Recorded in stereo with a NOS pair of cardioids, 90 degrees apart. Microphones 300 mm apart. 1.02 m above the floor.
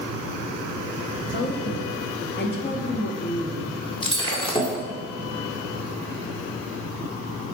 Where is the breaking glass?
15° left, 1.8 m.